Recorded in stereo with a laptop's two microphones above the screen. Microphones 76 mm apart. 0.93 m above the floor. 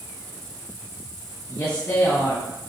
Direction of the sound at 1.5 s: 35° left (ahead or behind).